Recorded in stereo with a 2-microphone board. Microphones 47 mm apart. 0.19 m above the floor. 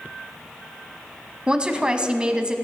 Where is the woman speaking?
20° right (ahead or behind), 1.1 m.